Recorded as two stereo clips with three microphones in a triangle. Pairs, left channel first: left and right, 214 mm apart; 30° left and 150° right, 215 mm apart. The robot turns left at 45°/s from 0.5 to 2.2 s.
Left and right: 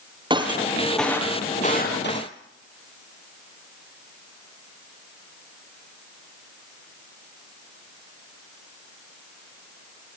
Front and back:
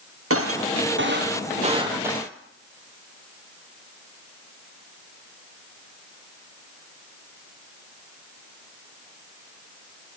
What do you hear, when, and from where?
0.3 s breaking glass: 160° right, 3.5 m; by 2.3 s 125° left, 3.5 m